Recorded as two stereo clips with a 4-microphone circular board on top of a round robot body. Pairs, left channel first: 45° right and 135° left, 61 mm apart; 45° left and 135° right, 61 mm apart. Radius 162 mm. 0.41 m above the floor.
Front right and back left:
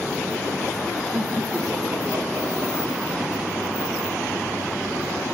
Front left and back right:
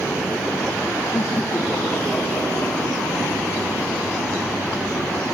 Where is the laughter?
80° left, 1.4 m; by 5.2 s 130° left, 3 m.